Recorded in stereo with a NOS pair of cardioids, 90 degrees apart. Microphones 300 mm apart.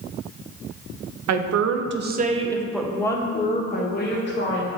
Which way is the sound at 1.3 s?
60° right.